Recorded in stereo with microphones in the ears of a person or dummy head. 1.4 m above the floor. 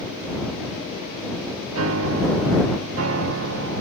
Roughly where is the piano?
Right.